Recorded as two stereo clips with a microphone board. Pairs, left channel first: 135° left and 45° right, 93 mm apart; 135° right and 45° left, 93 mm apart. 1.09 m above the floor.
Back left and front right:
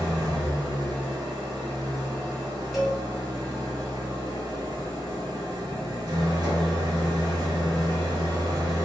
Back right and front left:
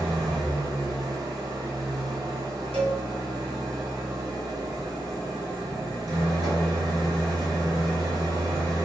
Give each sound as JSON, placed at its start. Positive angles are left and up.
{"t": 0.0, "sound": "an engine running", "azimuth_deg": 0, "distance_m": 1.1}
{"t": 2.7, "sound": "a cowbell", "azimuth_deg": 40, "distance_m": 1.0}